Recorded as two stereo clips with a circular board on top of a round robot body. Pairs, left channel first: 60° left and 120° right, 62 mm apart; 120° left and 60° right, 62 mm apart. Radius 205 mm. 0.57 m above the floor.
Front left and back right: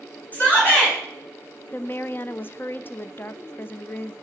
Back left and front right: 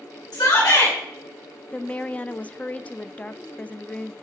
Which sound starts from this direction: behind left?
A shout, at 0.3 s.